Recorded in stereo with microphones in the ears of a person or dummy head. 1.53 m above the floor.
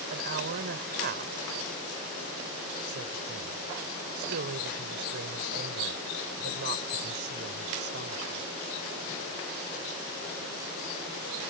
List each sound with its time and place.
0.1 s a woman speaking: 55° right (ahead or behind)